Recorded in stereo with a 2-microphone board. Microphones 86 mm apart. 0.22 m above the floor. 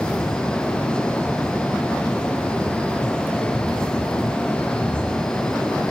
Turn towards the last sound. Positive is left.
No sound to turn to.